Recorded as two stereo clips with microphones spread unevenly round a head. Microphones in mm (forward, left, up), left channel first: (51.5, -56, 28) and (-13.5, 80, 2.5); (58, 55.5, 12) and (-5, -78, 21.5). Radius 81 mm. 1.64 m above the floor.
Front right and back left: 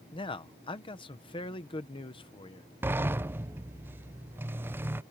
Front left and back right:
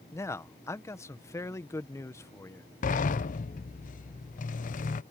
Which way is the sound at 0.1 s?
5° right.